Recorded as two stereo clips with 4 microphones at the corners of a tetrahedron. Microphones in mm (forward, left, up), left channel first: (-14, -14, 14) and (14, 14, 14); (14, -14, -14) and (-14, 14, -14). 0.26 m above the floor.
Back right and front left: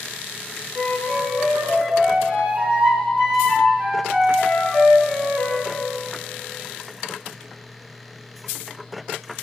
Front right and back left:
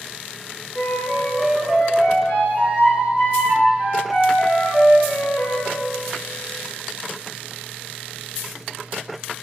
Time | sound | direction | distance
0.8 | a flute | 10° left | 4 m